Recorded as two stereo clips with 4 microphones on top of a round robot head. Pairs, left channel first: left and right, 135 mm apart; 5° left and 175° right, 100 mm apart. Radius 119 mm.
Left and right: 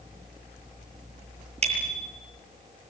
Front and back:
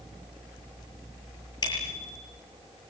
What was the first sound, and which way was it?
A bicycle bell, 50° right.